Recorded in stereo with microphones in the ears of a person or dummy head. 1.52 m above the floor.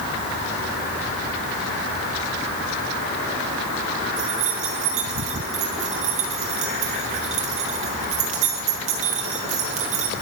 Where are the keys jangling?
45° right (ahead or behind), 1.2 m.